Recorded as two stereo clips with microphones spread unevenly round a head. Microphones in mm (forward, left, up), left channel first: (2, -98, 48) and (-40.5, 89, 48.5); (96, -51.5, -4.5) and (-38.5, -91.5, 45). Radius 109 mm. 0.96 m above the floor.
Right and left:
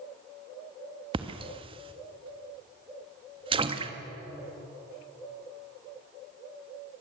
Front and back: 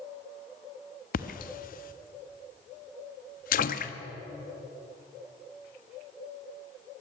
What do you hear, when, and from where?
1.1 s a splash: 35° left, 1.2 m